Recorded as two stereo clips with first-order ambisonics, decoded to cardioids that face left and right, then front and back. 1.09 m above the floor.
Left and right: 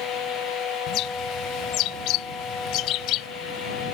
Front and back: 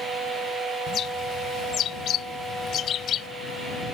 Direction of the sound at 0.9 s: 55° left.